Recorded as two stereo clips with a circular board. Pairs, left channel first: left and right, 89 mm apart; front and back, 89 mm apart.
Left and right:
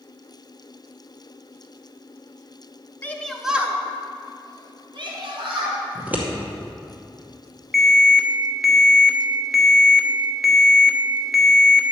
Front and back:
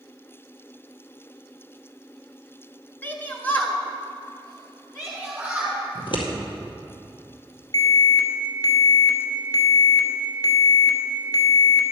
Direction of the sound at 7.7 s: Straight ahead.